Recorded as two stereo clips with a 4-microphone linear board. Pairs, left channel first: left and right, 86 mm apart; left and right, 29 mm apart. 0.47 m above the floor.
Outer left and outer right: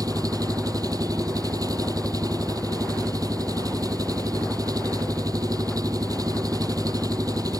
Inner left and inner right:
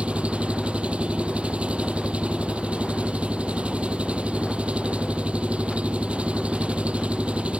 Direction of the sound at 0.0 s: 50° right (ahead or behind).